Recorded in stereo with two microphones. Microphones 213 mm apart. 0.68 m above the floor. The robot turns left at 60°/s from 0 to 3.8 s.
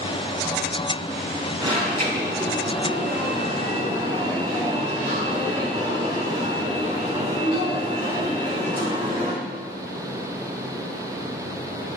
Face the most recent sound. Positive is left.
turn(degrees=-155)